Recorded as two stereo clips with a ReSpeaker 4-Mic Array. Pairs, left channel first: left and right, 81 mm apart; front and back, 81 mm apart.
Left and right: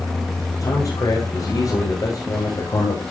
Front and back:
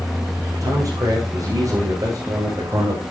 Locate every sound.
0.6 s a man speaking: 140° left, 9 m